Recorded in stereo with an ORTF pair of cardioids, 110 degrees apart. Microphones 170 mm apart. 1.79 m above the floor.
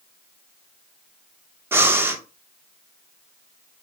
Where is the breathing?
15° right, 0.7 m.